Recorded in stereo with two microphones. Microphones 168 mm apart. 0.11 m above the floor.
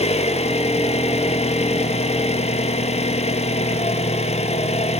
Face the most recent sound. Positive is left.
turn(degrees=40)  # may be behind; listen again after turning